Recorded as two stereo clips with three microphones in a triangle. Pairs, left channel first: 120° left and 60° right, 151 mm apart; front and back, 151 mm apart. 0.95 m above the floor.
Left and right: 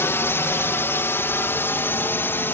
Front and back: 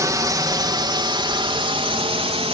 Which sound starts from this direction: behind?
A drone, at 0.0 s.